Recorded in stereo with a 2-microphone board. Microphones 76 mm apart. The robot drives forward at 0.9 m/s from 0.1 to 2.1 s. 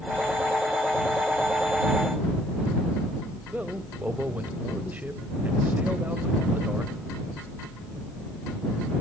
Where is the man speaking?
25° right (ahead or behind), 1.2 m.